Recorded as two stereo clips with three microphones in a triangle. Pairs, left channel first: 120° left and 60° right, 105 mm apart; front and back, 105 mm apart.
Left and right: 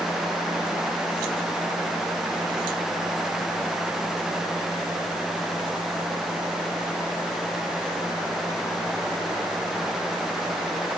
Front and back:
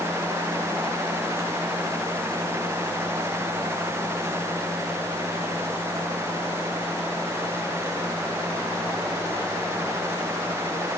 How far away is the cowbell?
No cowbell in this recording.